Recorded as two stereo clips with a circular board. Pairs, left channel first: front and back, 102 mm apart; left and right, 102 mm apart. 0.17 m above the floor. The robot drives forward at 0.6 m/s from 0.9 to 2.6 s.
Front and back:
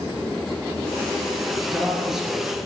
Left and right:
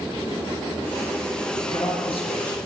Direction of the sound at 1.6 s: 85° left.